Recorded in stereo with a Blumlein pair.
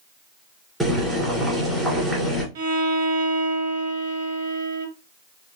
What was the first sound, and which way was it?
Boiling, 10° right.